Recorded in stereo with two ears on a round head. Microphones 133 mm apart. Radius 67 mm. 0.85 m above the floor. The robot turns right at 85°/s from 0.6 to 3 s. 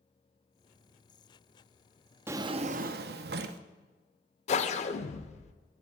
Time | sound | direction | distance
2.3 | a drawer | 165° right | 0.5 m
4.5 | a whoosh | 50° left (ahead or behind) | 0.6 m